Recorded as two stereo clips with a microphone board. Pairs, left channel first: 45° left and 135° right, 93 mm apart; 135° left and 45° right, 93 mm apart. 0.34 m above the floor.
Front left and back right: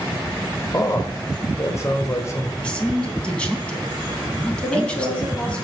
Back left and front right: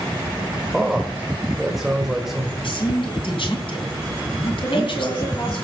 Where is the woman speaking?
115° left, 6.5 m.